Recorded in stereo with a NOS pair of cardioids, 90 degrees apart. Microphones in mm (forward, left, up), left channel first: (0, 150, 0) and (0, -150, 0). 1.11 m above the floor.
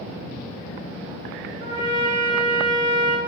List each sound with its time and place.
1.6 s a trumpet: 70° right, 0.9 m